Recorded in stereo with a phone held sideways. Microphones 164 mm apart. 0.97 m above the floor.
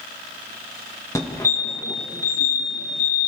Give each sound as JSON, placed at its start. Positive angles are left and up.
{"t": 1.1, "sound": "a fire alarm", "side_deg": 20, "distance_m": 1.7}